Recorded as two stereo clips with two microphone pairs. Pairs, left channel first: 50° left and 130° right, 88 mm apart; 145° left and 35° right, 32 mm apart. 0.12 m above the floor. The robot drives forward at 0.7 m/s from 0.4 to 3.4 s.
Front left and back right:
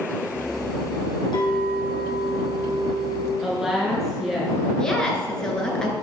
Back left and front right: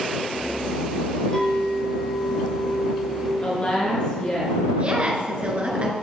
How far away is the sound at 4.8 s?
About 1.7 m.